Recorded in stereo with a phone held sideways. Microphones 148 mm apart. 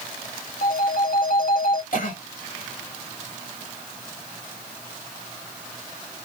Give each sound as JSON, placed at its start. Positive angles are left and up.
{"t": 0.6, "sound": "a phone ringing", "side_deg": 70, "distance_m": 1.1}
{"t": 1.9, "sound": "a cough", "side_deg": 65, "distance_m": 1.9}